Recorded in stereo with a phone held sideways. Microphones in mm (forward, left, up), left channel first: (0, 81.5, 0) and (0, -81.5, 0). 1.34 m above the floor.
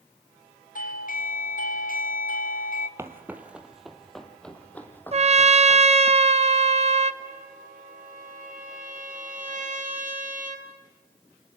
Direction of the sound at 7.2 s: 60° right (ahead or behind).